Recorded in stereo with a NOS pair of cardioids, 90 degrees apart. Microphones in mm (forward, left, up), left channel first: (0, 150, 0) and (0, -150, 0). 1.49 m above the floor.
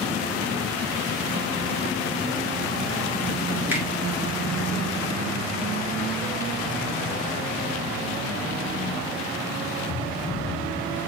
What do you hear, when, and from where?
3.7 s a finger snap: 5° right, 1.4 m